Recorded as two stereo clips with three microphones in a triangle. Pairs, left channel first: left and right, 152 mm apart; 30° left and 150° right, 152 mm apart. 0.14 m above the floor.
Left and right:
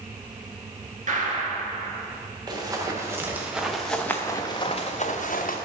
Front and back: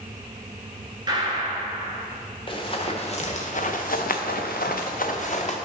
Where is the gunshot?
95° right, 1.3 m.